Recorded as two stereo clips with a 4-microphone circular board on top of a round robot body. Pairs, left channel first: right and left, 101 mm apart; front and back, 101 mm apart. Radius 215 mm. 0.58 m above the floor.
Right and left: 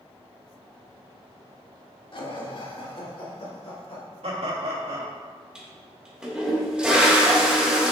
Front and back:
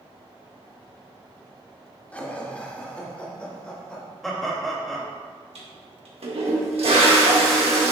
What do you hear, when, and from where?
2.1 s laughter: 75° right, 2 m; by 4.0 s 80° right, 3 m
4.2 s laughter: 90° left, 2.5 m
5.5 s a toilet flushing: 170° left, 1.9 m